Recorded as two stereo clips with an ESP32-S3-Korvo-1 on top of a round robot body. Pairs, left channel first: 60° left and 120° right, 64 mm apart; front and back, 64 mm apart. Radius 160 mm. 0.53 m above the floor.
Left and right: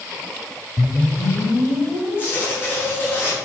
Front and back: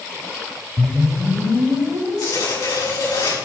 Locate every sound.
0.8 s a whoosh: 105° left, 1.6 m
2.2 s tearing paper: 5° left, 5.5 m